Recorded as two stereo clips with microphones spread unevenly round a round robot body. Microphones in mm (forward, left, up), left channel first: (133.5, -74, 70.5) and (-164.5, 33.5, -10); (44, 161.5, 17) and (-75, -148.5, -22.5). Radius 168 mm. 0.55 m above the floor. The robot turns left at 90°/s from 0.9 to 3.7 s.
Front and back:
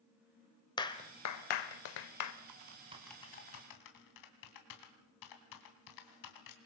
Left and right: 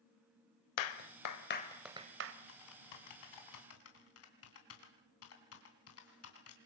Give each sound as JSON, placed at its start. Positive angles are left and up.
{"t": 0.8, "sound": "a clap", "azimuth_deg": 60, "distance_m": 1.6}
{"t": 2.5, "sound": "typing on a keyboard", "azimuth_deg": 125, "distance_m": 3.0}